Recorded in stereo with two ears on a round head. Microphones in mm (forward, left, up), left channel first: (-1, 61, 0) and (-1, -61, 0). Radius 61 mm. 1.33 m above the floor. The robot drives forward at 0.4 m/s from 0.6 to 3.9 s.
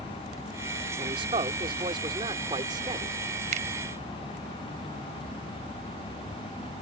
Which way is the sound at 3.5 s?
55° right (ahead or behind).